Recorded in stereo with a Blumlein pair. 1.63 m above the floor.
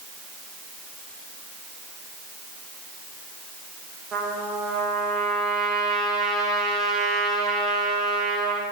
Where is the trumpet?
20° right, 1.0 m.